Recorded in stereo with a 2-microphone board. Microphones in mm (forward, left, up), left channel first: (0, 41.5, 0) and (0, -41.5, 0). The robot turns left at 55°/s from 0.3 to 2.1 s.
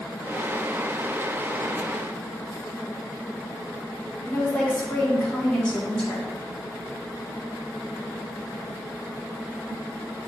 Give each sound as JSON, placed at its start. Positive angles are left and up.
{"t": 4.2, "sound": "a woman speaking", "side_deg": 15, "distance_m": 2.0}